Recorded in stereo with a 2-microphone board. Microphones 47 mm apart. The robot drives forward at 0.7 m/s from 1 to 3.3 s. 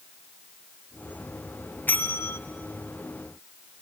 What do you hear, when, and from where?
1.9 s a bell: 40° left (ahead or behind), 0.9 m; by 2.4 s 60° left (ahead or behind), 0.7 m